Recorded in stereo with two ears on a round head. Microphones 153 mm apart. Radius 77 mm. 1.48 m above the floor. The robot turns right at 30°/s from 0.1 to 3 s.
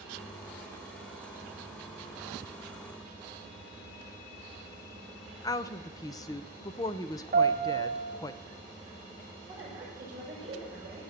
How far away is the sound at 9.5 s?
About 8 m.